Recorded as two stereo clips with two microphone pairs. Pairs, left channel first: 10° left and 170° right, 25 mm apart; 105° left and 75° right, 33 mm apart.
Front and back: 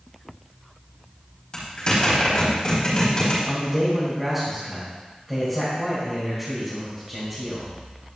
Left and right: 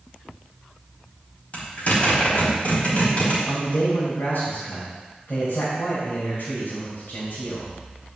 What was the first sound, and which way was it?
A zipper, 65° left.